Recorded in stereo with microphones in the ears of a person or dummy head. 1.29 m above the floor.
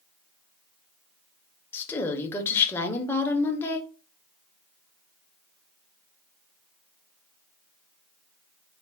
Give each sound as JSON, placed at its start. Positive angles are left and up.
{"t": 1.7, "sound": "a woman speaking", "side_deg": 10, "distance_m": 0.8}